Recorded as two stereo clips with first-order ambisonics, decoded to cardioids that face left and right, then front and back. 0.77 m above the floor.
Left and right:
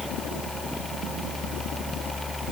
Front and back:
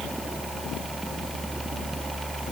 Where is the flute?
I don't hear a flute.